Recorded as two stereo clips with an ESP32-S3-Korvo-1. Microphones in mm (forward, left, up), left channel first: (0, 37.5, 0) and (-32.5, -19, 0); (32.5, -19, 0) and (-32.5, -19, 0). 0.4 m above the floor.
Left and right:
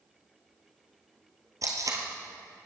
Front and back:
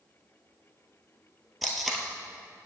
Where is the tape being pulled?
90° right, 1.6 m.